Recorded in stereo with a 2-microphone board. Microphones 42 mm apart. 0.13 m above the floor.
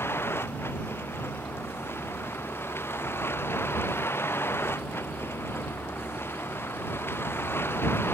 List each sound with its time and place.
0.0 s a vehicle: 85° left; by 8.2 s 75° left (ahead or behind)